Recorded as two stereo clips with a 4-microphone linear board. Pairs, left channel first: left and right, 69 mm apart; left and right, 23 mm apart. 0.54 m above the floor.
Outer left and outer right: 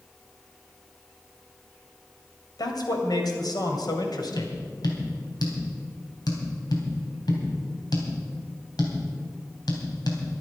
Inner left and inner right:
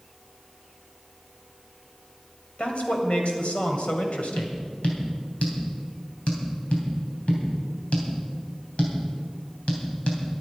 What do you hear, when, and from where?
2.6 s a man speaking: 70° left (ahead or behind), 2.5 m
4.4 s tapping: 75° left (ahead or behind), 3 m